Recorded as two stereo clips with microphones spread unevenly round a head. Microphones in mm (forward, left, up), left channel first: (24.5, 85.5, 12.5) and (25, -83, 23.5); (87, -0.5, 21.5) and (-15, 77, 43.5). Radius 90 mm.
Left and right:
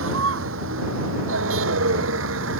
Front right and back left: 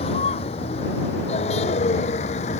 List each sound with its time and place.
0.0 s a vehicle: 95° right; by 2.6 s 85° right